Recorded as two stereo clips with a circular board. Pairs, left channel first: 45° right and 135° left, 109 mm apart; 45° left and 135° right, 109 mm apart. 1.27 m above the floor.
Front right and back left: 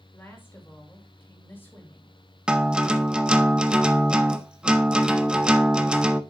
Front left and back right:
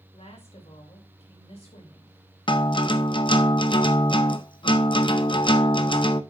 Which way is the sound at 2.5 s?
55° left.